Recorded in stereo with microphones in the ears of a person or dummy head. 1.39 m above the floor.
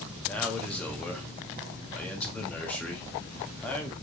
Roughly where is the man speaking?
Centre.